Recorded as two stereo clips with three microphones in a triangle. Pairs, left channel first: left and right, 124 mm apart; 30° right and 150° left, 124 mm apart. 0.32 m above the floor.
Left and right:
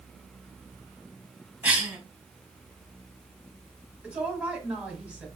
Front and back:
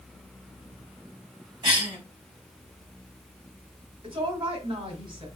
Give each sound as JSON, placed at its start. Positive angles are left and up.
{"t": 1.6, "sound": "a cough", "azimuth_deg": -165, "distance_m": 2.5}
{"t": 4.0, "sound": "a woman speaking", "azimuth_deg": -170, "distance_m": 1.6}